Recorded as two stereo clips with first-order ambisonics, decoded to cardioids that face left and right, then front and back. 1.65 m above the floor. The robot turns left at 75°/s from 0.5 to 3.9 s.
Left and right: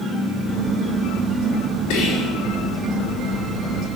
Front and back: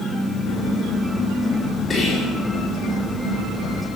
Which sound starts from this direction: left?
Whispering, at 1.9 s.